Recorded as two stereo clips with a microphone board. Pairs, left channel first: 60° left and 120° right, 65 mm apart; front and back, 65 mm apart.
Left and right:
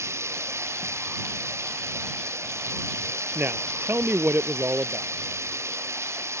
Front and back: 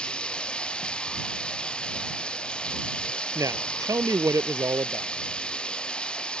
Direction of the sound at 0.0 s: 75° right.